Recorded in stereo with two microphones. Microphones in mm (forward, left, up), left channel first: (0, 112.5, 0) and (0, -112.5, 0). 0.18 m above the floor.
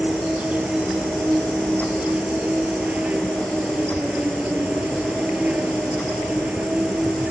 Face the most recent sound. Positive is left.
turn(degrees=-5)  # may be behind; listen again after turning